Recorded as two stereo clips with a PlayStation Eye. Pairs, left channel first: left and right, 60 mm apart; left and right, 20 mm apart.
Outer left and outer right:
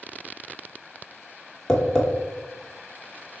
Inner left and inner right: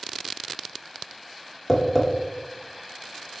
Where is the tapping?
10° left (ahead or behind), 1.0 m.